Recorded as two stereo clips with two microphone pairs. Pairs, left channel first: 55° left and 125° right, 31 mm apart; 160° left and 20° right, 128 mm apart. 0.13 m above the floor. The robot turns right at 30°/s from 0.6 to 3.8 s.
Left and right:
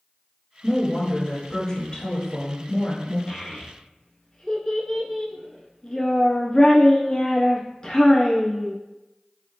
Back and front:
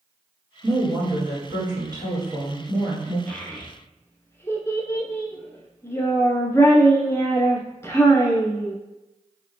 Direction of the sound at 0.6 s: 20° right.